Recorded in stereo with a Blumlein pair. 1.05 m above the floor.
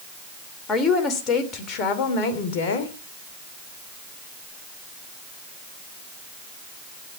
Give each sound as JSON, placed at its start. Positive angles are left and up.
{"t": 0.7, "sound": "a woman speaking", "azimuth_deg": 20, "distance_m": 3.0}